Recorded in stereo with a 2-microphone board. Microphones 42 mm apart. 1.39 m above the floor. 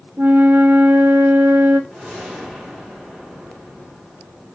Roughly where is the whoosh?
Right.